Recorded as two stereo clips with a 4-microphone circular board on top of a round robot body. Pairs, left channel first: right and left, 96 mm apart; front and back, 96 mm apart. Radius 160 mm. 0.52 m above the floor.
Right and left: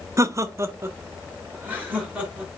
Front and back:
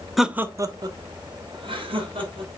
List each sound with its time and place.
0.2 s laughter: 90° left, 0.9 m; by 2.5 s 165° left, 3.5 m